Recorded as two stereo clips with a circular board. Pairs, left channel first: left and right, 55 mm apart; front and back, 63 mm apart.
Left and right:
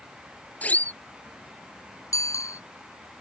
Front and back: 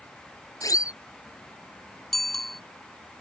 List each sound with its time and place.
0.6 s a siren: 30° left
2.1 s a bicycle bell: 90° left